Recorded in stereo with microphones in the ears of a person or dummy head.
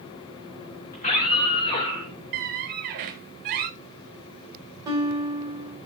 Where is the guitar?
25° right (ahead or behind), 5 m.